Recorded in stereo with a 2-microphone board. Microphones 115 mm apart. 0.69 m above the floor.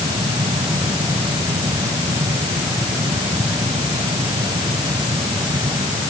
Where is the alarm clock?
I don't hear an alarm clock.